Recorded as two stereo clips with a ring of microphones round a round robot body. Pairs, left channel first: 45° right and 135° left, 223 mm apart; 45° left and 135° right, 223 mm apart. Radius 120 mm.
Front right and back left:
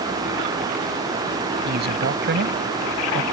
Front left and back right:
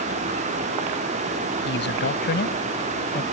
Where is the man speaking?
90° left; by 3.2 s 95° left.